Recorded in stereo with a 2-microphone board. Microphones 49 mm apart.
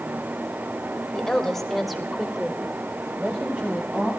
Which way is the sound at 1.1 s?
15° left (ahead or behind).